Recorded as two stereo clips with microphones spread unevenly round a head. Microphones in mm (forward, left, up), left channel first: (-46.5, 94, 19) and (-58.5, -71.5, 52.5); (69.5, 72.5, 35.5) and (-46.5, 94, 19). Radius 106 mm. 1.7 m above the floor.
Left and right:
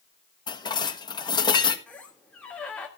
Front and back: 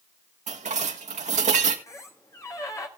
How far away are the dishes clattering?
About 1.5 m.